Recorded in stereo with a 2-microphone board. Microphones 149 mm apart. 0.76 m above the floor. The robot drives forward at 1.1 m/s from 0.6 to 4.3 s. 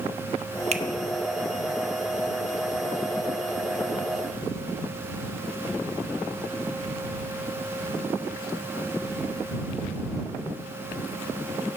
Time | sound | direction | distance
0.7 | a finger snap | 45° right (ahead or behind) | 0.9 m